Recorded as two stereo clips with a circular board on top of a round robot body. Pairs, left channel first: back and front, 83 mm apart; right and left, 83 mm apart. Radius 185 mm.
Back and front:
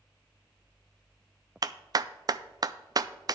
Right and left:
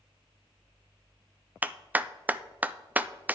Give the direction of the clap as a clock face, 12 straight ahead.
11 o'clock.